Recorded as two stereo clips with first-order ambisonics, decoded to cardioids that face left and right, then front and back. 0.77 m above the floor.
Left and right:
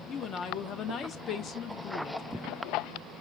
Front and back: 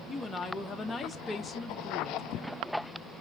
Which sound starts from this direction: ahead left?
A woman speaking, at 0.1 s.